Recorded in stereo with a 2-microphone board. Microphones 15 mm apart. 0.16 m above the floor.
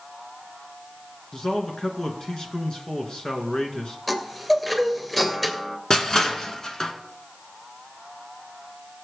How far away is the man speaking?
About 2.5 m.